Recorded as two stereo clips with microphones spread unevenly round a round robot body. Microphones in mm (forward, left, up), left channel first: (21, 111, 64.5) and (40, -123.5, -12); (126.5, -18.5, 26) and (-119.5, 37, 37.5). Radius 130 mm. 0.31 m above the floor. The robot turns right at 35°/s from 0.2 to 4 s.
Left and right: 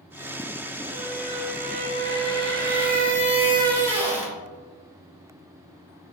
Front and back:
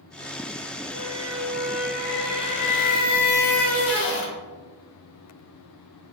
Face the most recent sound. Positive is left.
turn(degrees=-20)